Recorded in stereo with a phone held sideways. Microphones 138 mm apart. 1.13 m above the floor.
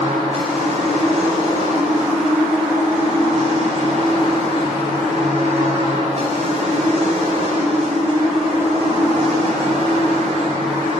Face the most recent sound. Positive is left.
turn(degrees=-50)  # may be behind; listen again after turning